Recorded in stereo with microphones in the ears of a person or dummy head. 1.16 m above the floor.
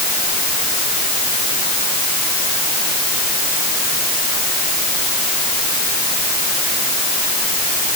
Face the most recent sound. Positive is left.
No sound to turn to.